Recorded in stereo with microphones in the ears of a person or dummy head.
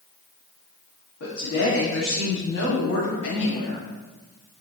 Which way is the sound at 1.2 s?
75° left (ahead or behind).